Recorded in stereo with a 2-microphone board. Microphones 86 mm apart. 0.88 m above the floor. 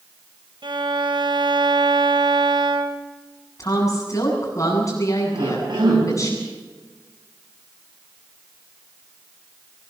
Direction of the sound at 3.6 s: 45° left (ahead or behind).